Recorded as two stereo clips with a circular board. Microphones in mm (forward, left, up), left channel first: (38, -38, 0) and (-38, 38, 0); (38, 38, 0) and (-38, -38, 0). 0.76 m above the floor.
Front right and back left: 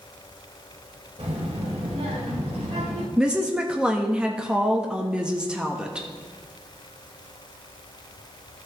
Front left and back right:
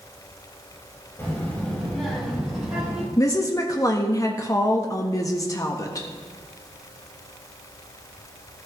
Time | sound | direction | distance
1.2 | a child speaking | 115° left | 2 m
3.2 | a woman speaking | 60° left | 1.0 m